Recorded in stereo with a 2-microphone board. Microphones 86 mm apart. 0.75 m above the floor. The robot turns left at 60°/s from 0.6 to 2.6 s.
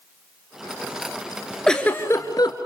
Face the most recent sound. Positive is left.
turn(degrees=115)